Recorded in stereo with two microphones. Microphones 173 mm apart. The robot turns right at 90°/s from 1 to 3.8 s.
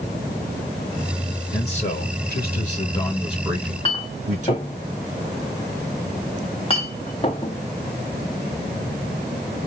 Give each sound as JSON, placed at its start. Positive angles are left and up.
{"t": 1.5, "sound": "a man speaking", "azimuth_deg": 25, "distance_m": 2.5}
{"t": 3.5, "sound": "a clink", "side_deg": 30, "distance_m": 1.0}